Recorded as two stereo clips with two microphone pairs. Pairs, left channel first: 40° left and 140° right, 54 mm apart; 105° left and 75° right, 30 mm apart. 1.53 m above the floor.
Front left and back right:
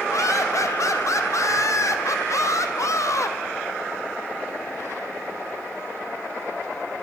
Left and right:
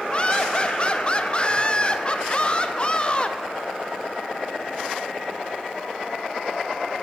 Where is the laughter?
45° left, 0.6 m.